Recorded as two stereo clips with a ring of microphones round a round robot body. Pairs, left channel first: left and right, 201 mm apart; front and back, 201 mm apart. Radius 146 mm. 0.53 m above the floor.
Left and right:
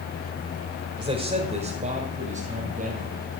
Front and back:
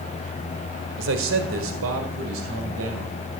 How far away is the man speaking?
About 1.6 m.